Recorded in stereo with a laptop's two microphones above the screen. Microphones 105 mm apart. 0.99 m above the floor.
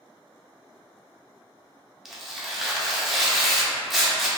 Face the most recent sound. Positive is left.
turn(degrees=0)  # may be behind; listen again after turning